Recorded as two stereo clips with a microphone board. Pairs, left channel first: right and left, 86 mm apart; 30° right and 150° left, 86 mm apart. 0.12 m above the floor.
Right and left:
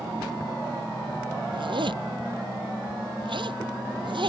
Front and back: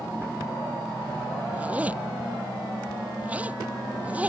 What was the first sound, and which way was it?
A zipper, 80° left.